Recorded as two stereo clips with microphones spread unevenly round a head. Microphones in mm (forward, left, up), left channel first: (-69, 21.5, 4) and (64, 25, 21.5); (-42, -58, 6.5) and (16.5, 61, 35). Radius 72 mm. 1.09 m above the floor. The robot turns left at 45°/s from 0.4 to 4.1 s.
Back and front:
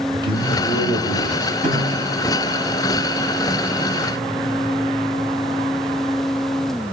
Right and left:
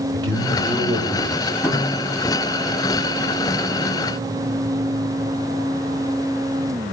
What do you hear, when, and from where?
0.1 s a man speaking: 60° left, 3.5 m; by 1.5 s 5° left, 3.5 m
1.6 s a snare drum: 50° right, 7 m; by 2.1 s 70° right, 7 m